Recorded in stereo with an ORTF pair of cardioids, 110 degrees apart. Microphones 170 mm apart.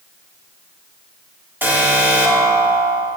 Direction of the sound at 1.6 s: 10° right.